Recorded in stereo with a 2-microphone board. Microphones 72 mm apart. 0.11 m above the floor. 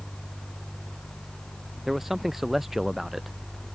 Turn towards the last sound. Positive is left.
turn(degrees=-5)  # may be behind; listen again after turning